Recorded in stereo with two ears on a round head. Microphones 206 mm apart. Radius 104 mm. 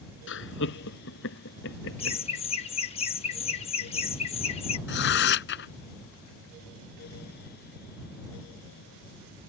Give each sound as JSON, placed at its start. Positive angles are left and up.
{"t": 0.3, "sound": "laughter", "side_deg": 55}
{"t": 2.0, "sound": "laughter", "side_deg": 25}
{"t": 4.9, "sound": "tearing paper", "side_deg": 50}